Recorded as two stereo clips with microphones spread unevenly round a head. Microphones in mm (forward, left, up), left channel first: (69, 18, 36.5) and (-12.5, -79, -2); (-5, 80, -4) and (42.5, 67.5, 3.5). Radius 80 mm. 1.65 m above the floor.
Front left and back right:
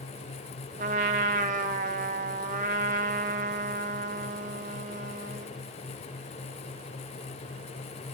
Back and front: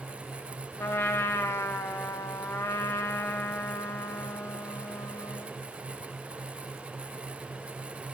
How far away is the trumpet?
About 0.6 m.